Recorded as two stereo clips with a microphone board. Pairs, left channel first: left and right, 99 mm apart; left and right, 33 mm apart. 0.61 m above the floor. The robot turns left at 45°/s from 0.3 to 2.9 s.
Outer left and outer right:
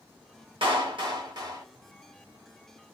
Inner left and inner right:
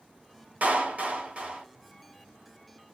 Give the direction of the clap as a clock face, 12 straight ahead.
3 o'clock.